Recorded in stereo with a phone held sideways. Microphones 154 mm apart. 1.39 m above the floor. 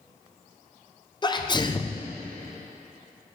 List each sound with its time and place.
1.2 s a sneeze: 30° left (ahead or behind), 0.7 m